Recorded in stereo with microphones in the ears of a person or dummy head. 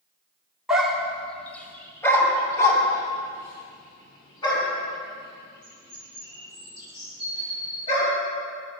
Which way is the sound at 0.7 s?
Centre (ahead or behind).